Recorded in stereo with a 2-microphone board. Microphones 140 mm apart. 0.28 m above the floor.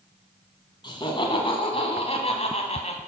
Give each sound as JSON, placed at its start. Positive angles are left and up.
{"t": 0.8, "sound": "laughter", "side_deg": 35, "distance_m": 2.5}